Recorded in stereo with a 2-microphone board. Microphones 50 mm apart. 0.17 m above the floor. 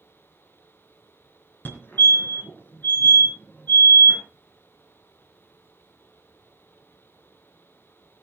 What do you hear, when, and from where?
1.6 s a fire alarm: 40° left (ahead or behind), 3 m